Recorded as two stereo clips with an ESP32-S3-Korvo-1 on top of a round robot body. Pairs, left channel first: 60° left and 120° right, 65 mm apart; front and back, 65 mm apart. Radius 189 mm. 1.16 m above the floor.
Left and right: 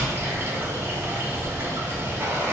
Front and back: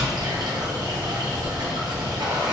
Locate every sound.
0.0 s running water: 175° right, 1.0 m